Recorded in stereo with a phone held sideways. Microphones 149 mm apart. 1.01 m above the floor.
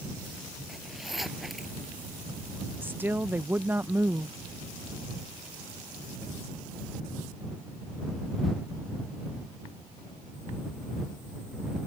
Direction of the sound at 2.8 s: 15° right (ahead or behind).